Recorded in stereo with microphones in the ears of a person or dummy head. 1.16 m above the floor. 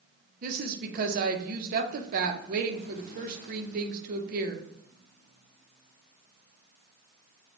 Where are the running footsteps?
No running footsteps in this recording.